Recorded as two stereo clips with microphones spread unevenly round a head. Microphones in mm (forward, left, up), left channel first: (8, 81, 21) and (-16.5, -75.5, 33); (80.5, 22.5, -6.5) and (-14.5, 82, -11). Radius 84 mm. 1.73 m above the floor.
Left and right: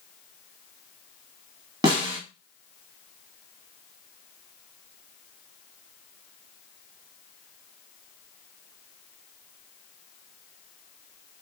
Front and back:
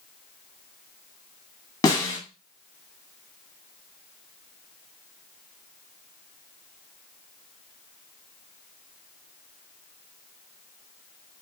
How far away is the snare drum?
About 1.1 m.